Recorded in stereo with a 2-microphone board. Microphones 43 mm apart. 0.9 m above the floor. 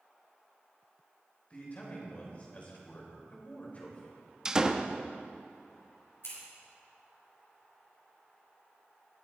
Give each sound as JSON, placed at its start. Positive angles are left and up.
{"t": 1.5, "sound": "a man speaking", "side_deg": 35, "distance_m": 4.0}
{"t": 4.5, "sound": "a door slam", "side_deg": -15, "distance_m": 0.6}
{"t": 6.2, "sound": "scissors", "side_deg": 80, "distance_m": 6.0}